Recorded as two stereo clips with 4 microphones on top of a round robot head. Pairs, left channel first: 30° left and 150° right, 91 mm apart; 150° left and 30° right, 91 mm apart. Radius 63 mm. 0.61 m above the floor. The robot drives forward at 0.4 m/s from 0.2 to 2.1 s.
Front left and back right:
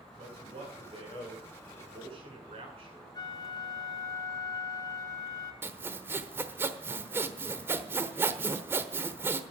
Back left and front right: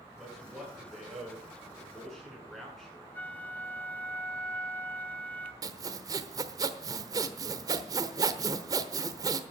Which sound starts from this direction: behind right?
A man speaking, at 0.2 s.